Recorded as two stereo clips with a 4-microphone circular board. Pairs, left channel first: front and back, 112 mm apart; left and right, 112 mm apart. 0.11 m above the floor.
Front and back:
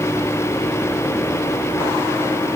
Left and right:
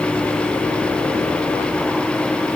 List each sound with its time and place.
Only background noise.